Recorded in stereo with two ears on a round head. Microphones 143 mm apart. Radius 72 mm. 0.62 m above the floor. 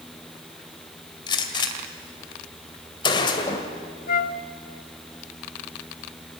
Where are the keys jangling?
No keys jangling in this recording.